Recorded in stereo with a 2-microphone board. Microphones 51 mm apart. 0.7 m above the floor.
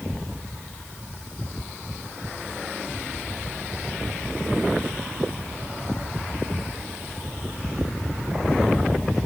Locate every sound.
Only background noise.